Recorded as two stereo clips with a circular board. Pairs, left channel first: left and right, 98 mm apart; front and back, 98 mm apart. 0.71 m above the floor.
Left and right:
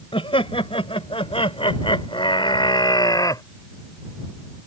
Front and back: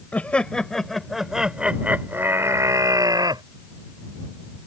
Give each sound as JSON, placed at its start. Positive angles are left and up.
{"t": 0.1, "sound": "laughter", "azimuth_deg": 75}